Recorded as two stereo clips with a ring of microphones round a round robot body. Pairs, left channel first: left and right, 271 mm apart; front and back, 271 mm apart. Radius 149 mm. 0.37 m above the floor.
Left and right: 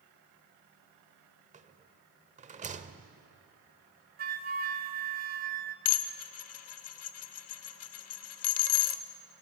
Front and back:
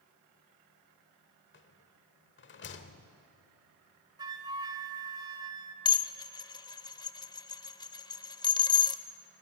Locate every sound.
1.5 s a rattle: 35° right, 1.1 m
4.2 s a flute: 115° right, 1.0 m
5.8 s dishes clattering: 75° left, 0.8 m